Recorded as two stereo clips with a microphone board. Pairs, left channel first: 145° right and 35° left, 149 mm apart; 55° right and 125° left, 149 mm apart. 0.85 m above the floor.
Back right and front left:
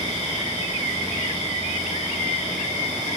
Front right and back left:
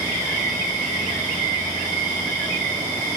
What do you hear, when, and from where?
0.0 s an insect: 115° right, 1.2 m